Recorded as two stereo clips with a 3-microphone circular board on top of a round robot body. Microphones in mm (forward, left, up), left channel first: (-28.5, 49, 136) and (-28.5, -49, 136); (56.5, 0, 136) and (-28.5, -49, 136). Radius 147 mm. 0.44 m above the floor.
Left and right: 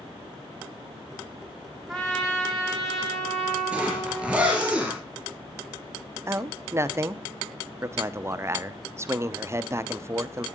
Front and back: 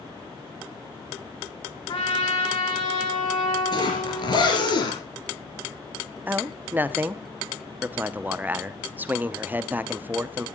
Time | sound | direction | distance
1.9 | a trumpet | 5° left | 3.5 m
3.7 | a zipper | 10° right | 4.5 m
6.3 | a man speaking | 100° right | 1.0 m